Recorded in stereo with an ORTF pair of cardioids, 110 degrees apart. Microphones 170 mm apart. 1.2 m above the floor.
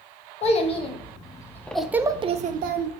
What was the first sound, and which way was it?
A child speaking, 40° left.